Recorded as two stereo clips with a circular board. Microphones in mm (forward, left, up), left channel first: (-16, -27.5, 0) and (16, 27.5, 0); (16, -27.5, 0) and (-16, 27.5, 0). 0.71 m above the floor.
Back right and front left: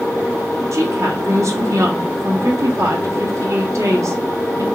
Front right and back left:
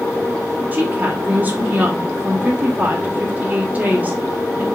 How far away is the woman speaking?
About 1.2 m.